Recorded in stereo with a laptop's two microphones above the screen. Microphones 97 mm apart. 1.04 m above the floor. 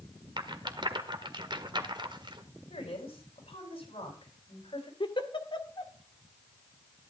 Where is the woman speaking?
70° left (ahead or behind), 8 m.